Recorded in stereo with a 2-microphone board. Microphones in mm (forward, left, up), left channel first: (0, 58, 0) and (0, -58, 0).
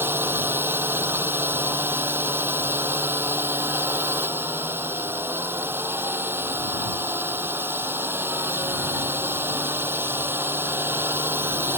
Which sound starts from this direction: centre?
A drone, at 0.0 s.